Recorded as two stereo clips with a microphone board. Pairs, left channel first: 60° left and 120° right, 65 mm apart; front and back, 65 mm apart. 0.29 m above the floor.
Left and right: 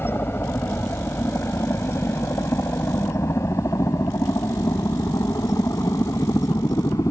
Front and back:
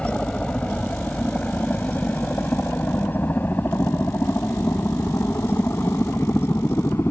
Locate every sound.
0.0 s a helicopter: 60° left; by 7.1 s 40° left